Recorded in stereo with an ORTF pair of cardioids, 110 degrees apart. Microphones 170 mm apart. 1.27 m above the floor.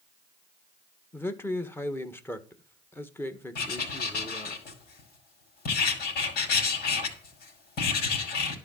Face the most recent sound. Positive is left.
turn(degrees=70)